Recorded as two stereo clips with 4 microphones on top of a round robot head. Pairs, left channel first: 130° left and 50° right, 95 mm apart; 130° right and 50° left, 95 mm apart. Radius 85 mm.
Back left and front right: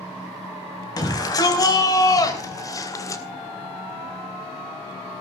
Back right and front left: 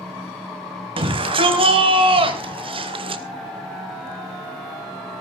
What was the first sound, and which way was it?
A shout, 80° left.